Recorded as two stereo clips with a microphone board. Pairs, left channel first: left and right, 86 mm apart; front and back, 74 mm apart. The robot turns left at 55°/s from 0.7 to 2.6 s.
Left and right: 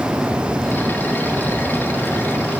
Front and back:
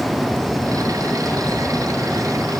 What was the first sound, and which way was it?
Only background noise.